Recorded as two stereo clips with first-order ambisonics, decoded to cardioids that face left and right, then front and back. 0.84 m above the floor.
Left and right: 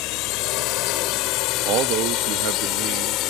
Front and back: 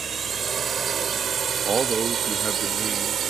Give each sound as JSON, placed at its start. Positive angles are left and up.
{"t": 0.0, "sound": "a drone", "azimuth_deg": 110}
{"t": 1.6, "sound": "a man speaking", "azimuth_deg": -110}